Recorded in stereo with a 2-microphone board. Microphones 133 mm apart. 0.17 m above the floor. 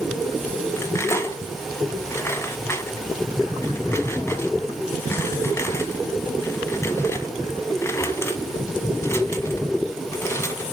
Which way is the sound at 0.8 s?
20° left (ahead or behind).